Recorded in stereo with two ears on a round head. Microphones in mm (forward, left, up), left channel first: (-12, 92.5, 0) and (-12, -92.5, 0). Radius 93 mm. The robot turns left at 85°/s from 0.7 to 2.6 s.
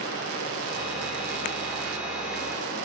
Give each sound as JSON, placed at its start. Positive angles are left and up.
{"t": 0.0, "sound": "running water", "azimuth_deg": 100, "distance_m": 4.0}